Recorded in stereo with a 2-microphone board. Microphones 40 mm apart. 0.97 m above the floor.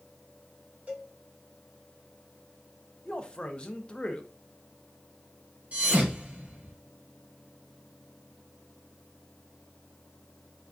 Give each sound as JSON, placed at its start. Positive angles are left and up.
{"t": 0.9, "sound": "a cowbell", "side_deg": -30, "distance_m": 1.7}
{"t": 3.0, "sound": "a man speaking", "side_deg": 25, "distance_m": 0.7}
{"t": 5.7, "sound": "a thud", "side_deg": -30, "distance_m": 2.0}